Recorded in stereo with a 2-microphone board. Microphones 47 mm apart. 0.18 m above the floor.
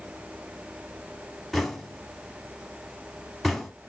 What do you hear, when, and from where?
1.5 s knocking: centre (ahead or behind), 0.8 m